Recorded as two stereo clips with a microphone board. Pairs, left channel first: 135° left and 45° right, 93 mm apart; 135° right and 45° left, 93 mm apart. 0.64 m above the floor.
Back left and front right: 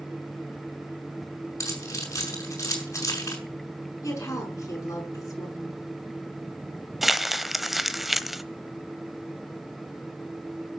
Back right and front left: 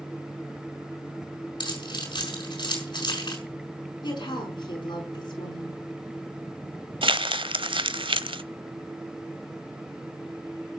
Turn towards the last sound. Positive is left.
turn(degrees=45)